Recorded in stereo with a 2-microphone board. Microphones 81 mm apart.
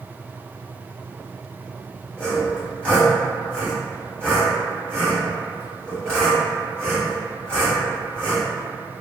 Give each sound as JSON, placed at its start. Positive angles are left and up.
{"t": 2.2, "sound": "sawing", "side_deg": 15, "distance_m": 1.1}